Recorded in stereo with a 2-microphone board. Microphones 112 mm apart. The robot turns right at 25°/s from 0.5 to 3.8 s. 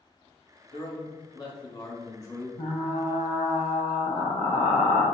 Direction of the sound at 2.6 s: 85° left.